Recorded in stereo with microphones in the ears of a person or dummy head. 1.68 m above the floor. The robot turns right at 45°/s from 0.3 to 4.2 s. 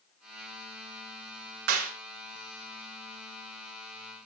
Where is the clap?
80° right, 3.5 m.